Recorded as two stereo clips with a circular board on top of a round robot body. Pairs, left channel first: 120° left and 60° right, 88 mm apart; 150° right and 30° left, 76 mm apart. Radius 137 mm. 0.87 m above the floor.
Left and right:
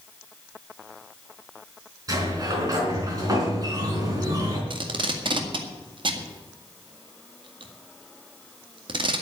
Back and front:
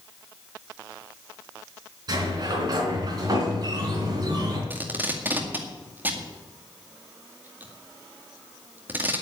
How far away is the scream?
No scream in this recording.